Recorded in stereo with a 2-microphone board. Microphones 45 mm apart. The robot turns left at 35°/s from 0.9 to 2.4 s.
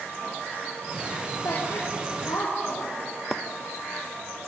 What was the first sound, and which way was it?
A woman speaking, 65° left (ahead or behind).